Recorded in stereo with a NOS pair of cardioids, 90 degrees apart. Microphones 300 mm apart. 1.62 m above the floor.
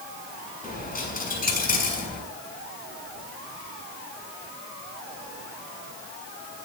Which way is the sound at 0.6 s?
30° left.